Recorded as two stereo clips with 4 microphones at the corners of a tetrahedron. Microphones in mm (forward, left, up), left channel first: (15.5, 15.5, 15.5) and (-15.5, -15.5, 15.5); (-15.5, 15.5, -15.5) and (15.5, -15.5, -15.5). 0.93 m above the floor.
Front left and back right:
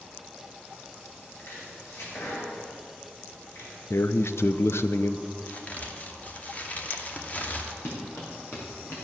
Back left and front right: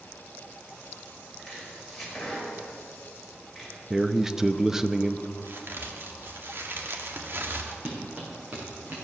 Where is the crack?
10° right, 1.4 m.